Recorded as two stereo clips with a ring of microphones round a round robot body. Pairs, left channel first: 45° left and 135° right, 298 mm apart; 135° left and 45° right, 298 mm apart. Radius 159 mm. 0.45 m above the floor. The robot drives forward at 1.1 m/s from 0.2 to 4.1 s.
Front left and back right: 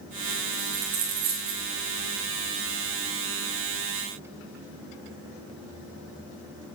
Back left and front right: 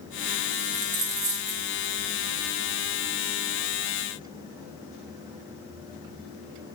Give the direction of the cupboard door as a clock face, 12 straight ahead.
I don't hear a cupboard door.